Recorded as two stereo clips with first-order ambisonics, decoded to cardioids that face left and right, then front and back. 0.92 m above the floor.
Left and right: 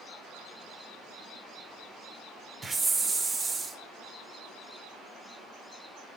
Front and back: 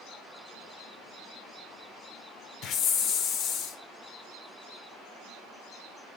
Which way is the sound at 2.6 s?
20° right.